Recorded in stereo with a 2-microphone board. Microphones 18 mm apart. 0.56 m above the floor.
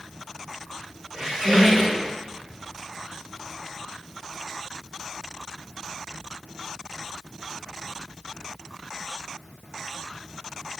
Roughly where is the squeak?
Right.